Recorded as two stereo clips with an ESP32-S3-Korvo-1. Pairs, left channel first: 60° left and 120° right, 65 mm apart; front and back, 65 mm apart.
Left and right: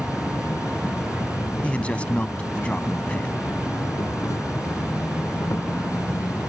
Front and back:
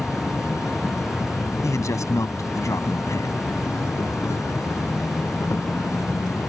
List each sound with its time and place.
0.0 s an insect: 35° left
1.6 s a man speaking: 5° right